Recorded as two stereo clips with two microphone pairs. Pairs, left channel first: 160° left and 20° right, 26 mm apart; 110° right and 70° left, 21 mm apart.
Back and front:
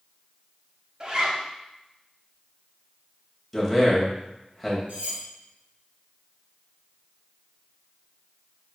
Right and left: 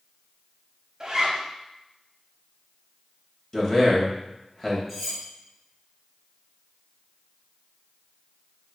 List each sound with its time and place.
1.0 s a zipper: 25° left, 0.7 m
3.5 s a man speaking: 120° right, 1.0 m
4.9 s cutlery clinking: 20° right, 1.8 m